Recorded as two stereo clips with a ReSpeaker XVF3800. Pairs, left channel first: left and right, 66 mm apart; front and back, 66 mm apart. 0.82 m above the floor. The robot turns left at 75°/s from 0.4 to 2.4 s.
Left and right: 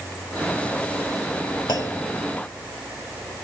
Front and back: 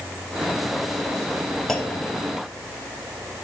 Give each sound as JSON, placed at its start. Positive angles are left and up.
{"t": 1.7, "sound": "a clunk", "azimuth_deg": 85, "distance_m": 0.7}